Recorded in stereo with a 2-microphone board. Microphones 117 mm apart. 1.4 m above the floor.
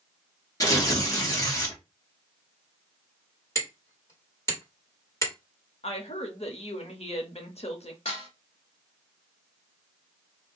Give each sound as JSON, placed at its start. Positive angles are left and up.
{"t": 0.6, "sound": "tearing paper", "side_deg": 30, "distance_m": 1.2}
{"t": 3.5, "sound": "hammering", "side_deg": 25, "distance_m": 1.7}
{"t": 5.8, "sound": "a woman speaking", "side_deg": 60, "distance_m": 1.0}
{"t": 8.1, "sound": "dishes clattering", "side_deg": 50, "distance_m": 1.6}